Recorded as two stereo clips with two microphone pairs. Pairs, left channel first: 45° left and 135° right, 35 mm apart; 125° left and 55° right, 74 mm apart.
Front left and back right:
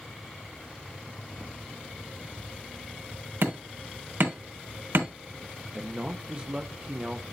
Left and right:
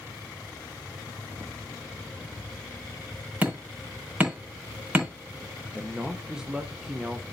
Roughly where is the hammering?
Behind right.